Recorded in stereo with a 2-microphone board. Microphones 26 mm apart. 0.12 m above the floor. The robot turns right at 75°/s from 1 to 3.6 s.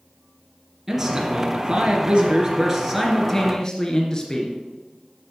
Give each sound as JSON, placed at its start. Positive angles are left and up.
{"t": 0.9, "sound": "a man speaking", "azimuth_deg": -160, "distance_m": 1.4}